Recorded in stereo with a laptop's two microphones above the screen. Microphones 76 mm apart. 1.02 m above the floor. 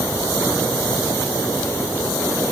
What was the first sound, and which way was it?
Only background noise.